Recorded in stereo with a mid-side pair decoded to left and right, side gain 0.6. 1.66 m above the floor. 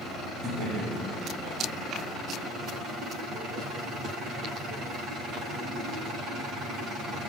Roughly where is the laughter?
Ahead right.